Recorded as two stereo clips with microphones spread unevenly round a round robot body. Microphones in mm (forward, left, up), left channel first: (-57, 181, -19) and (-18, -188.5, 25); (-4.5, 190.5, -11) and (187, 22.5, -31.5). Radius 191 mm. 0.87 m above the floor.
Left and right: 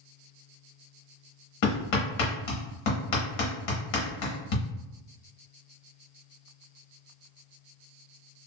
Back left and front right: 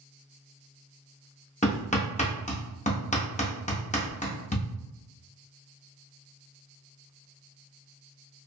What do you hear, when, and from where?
1.6 s hammering: 70° left, 1.1 m